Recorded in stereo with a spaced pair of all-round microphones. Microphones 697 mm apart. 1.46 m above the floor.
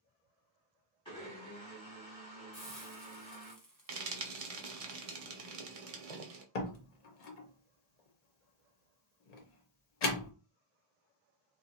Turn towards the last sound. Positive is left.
turn(degrees=65)  # may be behind; listen again after turning